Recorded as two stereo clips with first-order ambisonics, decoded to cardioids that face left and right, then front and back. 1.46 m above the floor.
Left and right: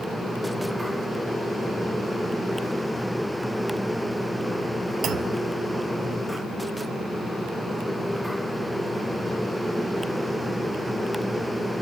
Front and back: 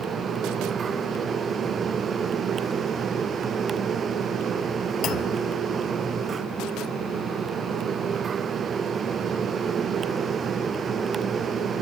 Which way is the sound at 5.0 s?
40° right.